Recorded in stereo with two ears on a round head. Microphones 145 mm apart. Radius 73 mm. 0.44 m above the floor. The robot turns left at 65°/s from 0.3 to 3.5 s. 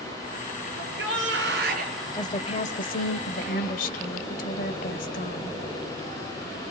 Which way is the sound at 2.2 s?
155° left.